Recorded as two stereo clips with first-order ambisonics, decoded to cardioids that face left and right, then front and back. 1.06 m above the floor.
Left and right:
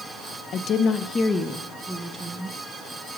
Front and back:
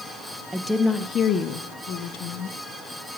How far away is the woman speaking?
About 0.6 m.